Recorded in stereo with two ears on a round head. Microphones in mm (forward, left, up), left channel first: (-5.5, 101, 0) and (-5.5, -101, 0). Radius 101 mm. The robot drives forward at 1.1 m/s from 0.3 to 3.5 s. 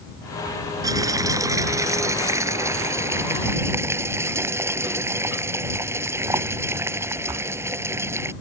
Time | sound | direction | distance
0.8 | boiling | 15° right (ahead or behind) | ?